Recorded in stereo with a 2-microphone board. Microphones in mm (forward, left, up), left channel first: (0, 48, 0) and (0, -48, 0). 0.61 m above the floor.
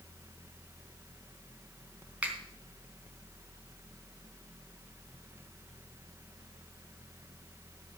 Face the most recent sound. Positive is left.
turn(degrees=-15)  # may be behind; listen again after turning